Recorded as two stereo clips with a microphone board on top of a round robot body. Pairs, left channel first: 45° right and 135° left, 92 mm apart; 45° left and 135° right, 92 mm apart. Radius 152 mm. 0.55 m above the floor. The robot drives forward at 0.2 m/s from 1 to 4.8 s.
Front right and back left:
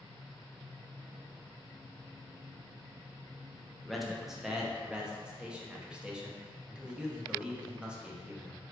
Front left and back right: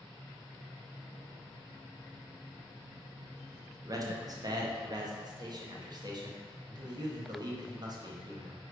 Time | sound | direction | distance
3.9 | a man speaking | 135° right | 0.7 m